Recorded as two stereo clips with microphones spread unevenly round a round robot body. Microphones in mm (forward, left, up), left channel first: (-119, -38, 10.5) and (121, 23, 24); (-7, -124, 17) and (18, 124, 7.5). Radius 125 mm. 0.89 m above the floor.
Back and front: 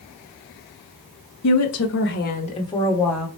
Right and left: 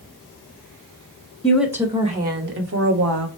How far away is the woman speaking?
About 1.0 m.